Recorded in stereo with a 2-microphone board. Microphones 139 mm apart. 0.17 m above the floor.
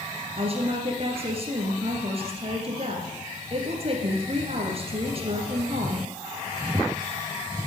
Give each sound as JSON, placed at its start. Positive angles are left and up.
{"t": 0.4, "sound": "a woman speaking", "side_deg": -45, "distance_m": 2.5}